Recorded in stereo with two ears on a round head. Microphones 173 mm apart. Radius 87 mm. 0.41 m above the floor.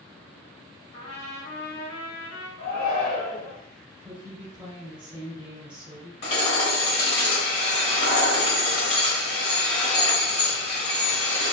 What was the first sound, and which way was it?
A trumpet, 65° left (ahead or behind).